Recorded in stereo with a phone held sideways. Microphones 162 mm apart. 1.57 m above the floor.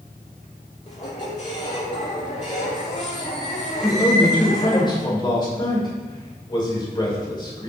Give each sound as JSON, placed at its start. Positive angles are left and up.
{"t": 0.9, "sound": "a squeak", "side_deg": 45, "distance_m": 2.5}
{"t": 3.8, "sound": "a man speaking", "side_deg": 30, "distance_m": 2.5}